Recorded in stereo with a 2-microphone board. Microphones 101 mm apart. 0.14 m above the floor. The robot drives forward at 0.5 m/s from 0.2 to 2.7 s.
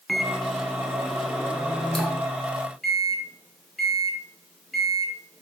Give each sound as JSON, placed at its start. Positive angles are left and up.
{"t": 0.1, "sound": "a microwave", "side_deg": 0, "distance_m": 0.9}